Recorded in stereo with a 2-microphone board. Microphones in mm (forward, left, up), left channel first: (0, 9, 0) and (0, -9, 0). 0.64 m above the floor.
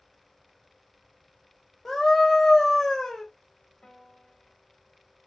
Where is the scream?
5° left (ahead or behind), 1.2 m.